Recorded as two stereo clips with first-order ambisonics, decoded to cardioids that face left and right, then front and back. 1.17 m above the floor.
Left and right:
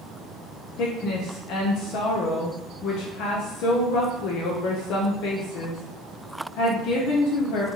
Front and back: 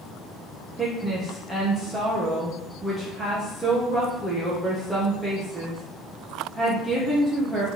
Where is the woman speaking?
100° left, 0.8 m.